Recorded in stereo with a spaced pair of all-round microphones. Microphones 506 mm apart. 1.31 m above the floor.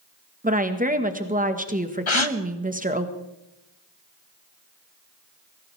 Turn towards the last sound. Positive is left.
turn(degrees=75)  # may be behind; listen again after turning